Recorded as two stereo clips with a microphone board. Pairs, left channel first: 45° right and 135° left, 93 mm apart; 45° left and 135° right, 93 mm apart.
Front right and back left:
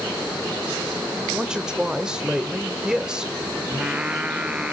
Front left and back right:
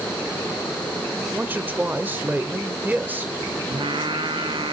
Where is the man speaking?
160° right, 1.1 m.